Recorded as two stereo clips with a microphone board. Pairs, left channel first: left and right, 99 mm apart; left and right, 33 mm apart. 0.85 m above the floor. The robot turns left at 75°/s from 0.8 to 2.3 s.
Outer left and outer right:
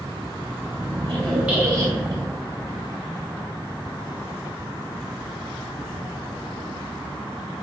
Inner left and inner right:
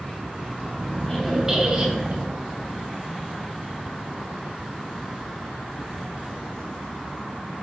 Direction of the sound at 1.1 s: 20° left.